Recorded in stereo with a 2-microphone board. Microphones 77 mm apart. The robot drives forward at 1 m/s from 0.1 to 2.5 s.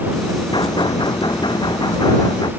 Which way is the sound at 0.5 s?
75° left (ahead or behind).